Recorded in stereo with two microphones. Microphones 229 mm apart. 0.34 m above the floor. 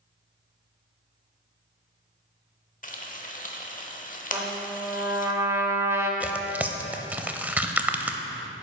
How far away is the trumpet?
About 0.9 m.